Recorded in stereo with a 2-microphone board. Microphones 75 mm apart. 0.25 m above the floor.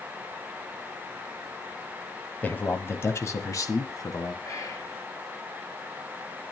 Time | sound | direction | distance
2.4 | a man speaking | 20° left (ahead or behind) | 1.5 m
4.4 | whispering | 45° left (ahead or behind) | 3 m